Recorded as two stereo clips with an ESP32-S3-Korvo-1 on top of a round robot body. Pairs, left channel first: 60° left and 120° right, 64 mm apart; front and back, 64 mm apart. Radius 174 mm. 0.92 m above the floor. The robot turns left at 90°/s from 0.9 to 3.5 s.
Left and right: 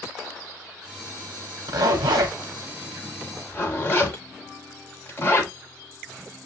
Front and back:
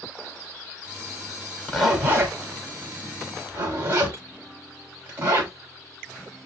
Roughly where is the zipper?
Right.